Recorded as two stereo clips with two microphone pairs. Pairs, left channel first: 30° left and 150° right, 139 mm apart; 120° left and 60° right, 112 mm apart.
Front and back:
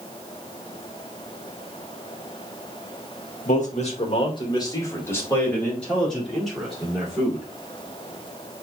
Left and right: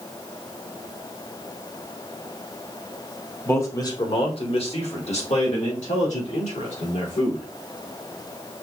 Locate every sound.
3.5 s a man speaking: 50° left, 1.5 m; by 7.5 s 125° left, 4 m